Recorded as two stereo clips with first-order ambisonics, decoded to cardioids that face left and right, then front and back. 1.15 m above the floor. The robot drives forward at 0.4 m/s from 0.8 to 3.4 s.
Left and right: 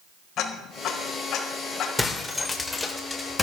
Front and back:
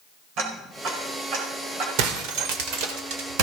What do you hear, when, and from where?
0.4 s ticking: 140° left, 4.5 m; by 1.9 s 145° left, 5 m
2.0 s breaking glass: 170° left, 1.9 m; by 3.4 s 175° left, 2.5 m